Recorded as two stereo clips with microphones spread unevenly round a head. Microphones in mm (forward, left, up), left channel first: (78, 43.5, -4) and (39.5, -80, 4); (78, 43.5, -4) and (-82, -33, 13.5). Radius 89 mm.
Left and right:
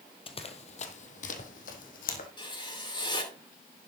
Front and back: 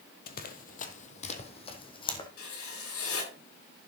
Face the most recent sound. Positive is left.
turn(degrees=20)